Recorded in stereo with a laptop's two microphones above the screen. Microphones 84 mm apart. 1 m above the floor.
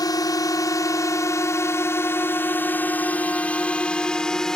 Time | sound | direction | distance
0.0 | a drone | 50° left (ahead or behind) | ?